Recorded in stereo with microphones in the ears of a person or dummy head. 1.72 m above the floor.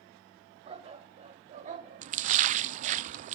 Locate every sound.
0.7 s a dog barking: 35° right (ahead or behind), 2.5 m; by 3.0 s 50° right (ahead or behind), 2.0 m
2.0 s a splash: 40° right (ahead or behind), 0.5 m